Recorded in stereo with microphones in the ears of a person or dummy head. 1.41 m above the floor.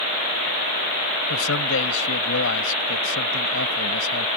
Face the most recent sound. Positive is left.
turn(degrees=85)